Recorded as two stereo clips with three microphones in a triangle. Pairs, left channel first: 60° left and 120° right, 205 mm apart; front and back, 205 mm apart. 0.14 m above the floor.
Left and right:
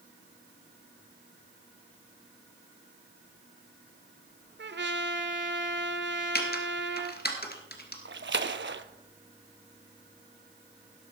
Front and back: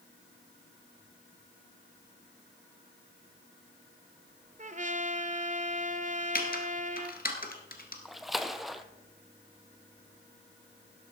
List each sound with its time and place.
4.6 s a trumpet: 135° right, 0.7 m
6.3 s typing on a keyboard: 35° left, 1.7 m
8.1 s a splash: 90° right, 0.6 m